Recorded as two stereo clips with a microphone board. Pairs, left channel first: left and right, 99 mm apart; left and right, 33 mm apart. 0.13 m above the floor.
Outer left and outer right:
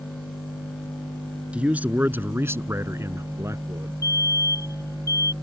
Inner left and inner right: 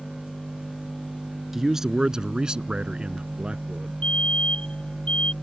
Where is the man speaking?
15° right (ahead or behind); by 3.9 s 30° right (ahead or behind).